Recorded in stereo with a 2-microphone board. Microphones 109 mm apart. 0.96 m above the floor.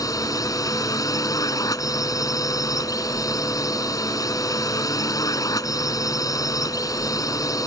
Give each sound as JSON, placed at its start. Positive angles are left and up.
{"t": 0.0, "sound": "a drone", "side_deg": 30}